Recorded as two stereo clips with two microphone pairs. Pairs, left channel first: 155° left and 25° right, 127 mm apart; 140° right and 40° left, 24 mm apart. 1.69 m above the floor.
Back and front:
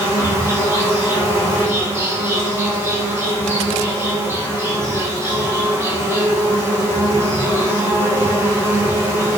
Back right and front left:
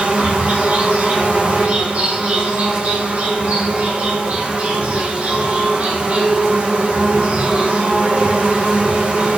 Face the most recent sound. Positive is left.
turn(degrees=45)